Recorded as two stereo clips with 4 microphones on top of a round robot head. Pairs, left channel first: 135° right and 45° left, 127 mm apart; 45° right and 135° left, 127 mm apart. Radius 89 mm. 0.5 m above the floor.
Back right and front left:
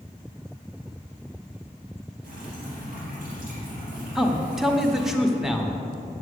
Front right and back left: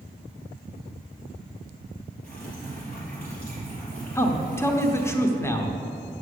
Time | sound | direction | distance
2.2 | dripping | 35° left | 3.5 m
4.2 | a man speaking | 35° right | 1.0 m